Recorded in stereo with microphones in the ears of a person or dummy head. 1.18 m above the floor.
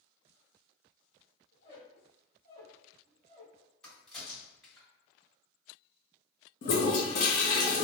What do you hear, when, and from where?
1.5 s a squeak: 35° left (ahead or behind), 1.7 m
3.8 s a crack: 5° left (ahead or behind), 1.7 m
6.6 s a toilet flushing: 45° left (ahead or behind), 0.6 m